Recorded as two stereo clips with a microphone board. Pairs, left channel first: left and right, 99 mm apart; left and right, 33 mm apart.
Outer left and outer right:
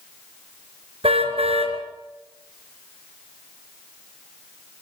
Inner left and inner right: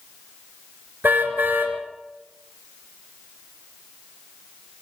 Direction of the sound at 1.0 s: 85° right.